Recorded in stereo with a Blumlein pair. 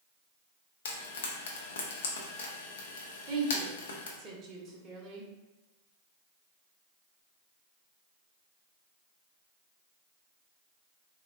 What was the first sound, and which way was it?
Frying, 60° left.